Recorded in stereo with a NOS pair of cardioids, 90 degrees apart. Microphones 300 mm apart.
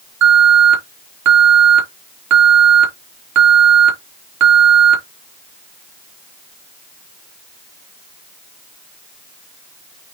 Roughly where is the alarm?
Right.